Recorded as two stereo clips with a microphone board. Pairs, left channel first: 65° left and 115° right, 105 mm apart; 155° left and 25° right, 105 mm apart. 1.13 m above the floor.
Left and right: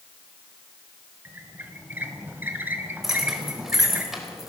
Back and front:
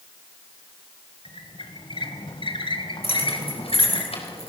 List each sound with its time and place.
1.2 s a squeak: straight behind, 1.9 m
3.0 s keys jangling: 160° left, 4 m